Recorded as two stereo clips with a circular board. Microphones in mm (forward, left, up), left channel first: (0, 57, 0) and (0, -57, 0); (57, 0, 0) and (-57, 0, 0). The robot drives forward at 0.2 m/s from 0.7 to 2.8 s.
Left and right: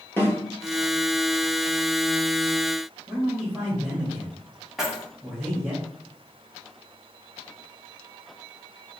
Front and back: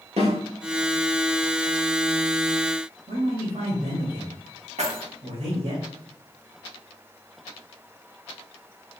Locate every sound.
0.2 s a snare drum: 160° left, 2.0 m
3.1 s a man speaking: straight behind, 1.7 m
4.8 s keys jangling: 175° right, 1.1 m